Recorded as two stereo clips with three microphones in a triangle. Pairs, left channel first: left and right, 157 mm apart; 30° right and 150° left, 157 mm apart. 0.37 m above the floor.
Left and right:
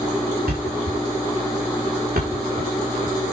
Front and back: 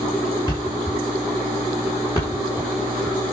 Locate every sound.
0.5 s a thud: 95° right, 6 m